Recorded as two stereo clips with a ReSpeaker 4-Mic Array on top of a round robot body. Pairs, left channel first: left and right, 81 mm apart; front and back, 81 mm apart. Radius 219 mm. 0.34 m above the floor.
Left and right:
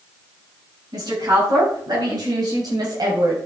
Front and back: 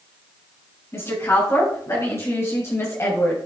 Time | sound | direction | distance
0.9 | a woman speaking | 55° right | 5 m